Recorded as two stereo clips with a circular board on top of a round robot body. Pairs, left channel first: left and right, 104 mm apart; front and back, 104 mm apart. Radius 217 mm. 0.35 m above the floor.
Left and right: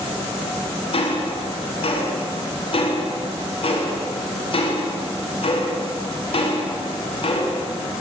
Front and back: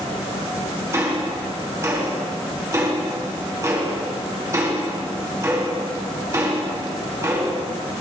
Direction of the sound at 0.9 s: 120° left.